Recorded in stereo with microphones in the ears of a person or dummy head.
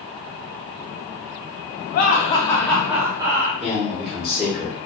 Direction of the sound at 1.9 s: 55° left (ahead or behind).